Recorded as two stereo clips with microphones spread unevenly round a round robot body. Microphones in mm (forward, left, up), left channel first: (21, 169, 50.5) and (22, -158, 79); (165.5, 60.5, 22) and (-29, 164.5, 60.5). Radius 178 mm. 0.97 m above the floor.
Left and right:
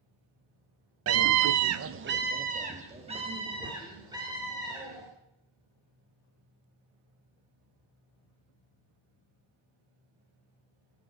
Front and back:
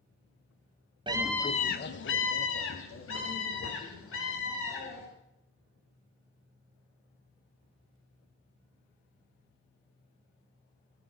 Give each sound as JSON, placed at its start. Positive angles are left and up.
{"t": 1.1, "sound": "a scream", "azimuth_deg": -135, "distance_m": 0.9}